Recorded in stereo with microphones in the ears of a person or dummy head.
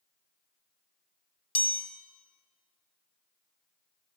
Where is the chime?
10° left (ahead or behind), 1.3 m.